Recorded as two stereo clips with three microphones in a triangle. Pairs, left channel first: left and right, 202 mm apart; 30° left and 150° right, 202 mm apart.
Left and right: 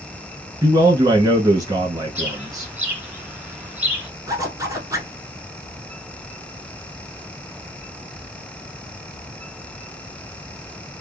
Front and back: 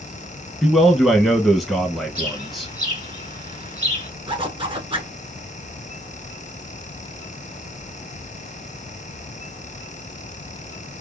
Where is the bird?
170° right, 2 m.